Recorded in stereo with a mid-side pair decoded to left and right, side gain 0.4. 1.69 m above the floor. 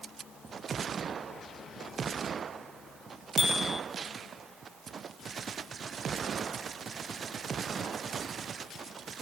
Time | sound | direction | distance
3.4 | a bicycle bell | 25° left | 2 m